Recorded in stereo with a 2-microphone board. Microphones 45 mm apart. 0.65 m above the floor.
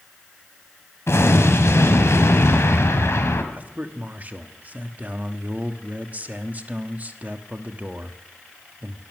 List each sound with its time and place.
1.1 s an explosion: 70° left (ahead or behind), 1.8 m
3.5 s a man speaking: 35° right (ahead or behind), 1.1 m